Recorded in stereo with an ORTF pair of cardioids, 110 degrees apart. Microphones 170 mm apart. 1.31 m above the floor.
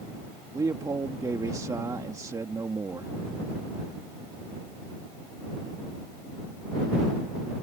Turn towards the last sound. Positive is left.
turn(degrees=-20)